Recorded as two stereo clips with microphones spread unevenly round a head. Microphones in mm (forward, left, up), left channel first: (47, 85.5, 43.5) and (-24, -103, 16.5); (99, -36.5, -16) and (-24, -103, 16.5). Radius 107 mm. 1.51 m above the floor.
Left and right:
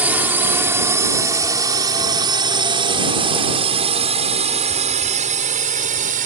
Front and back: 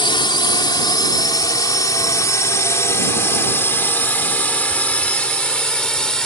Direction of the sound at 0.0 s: 30° right.